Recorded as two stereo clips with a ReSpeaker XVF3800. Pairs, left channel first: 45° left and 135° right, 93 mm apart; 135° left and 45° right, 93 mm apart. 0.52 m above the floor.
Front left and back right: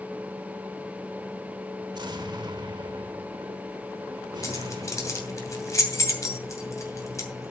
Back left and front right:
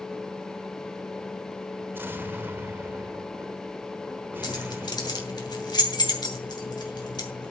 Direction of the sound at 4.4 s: 100° left.